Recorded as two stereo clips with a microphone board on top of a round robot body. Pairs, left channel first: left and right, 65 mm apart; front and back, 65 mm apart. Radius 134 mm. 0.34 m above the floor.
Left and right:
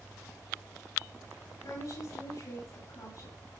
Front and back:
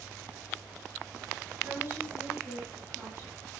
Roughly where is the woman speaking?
Behind left.